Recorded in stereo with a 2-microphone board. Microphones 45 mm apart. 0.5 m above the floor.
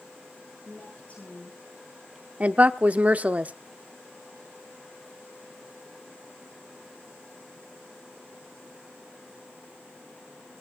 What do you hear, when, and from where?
0.7 s a woman speaking: 35° left (ahead or behind), 9.5 m
2.4 s a woman speaking: 35° right (ahead or behind), 0.7 m